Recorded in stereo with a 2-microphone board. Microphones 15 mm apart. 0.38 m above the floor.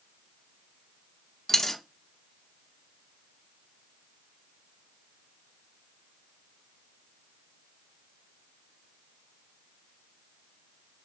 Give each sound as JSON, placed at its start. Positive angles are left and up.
{"t": 1.5, "sound": "a dropped coin", "side_deg": 25, "distance_m": 0.7}